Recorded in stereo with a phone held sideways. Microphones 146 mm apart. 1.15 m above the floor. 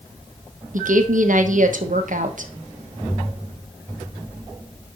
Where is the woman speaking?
65° right (ahead or behind), 1.2 m.